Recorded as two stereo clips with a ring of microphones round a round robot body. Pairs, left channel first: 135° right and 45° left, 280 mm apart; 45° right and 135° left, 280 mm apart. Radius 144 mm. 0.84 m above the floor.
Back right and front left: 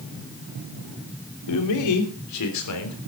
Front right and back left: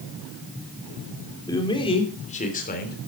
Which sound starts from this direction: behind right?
A man speaking, at 1.5 s.